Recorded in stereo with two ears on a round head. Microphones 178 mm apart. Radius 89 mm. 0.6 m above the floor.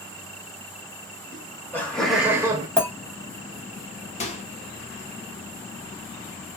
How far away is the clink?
About 1.4 m.